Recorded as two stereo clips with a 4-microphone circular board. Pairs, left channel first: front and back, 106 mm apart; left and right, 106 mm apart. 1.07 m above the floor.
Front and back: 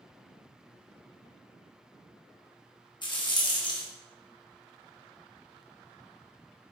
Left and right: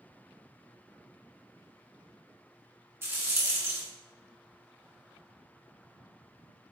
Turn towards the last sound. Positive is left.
turn(degrees=-30)